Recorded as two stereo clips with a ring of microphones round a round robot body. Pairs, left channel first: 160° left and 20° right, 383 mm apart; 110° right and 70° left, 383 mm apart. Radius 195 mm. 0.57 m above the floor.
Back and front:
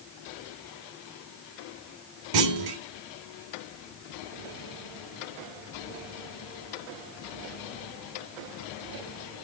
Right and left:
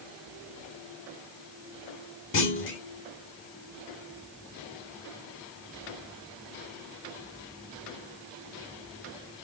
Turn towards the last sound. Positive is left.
turn(degrees=-55)